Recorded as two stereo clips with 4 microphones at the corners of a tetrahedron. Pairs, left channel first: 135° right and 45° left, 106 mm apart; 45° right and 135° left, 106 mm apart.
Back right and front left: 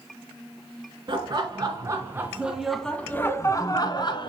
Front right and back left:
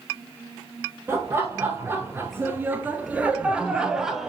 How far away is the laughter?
About 1.6 m.